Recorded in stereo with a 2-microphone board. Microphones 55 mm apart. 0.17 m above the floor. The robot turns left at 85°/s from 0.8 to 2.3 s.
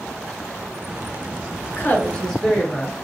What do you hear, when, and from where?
1.7 s a woman speaking: 65° left, 1.6 m; by 3.0 s 10° left, 1.6 m